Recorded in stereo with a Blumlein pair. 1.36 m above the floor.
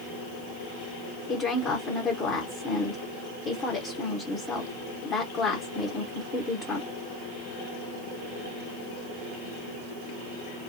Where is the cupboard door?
I don't hear a cupboard door.